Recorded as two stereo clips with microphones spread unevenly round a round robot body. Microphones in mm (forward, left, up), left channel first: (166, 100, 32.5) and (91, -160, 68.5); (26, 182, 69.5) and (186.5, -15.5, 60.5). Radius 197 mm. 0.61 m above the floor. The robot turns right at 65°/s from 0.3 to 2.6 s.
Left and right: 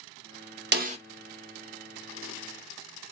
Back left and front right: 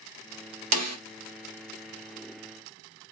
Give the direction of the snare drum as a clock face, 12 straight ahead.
2 o'clock.